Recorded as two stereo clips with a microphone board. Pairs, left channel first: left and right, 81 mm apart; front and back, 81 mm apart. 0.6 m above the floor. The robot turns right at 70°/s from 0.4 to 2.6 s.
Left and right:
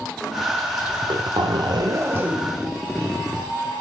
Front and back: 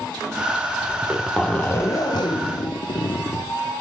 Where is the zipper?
115° right, 0.6 m; by 3.5 s 5° left, 0.6 m.